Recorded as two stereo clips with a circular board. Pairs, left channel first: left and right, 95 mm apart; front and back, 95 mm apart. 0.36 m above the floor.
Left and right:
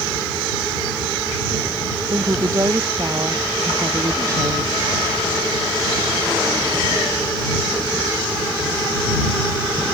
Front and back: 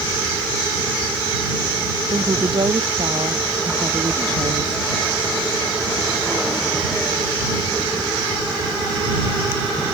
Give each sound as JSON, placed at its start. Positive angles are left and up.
{"t": 2.1, "sound": "a woman speaking", "azimuth_deg": -145}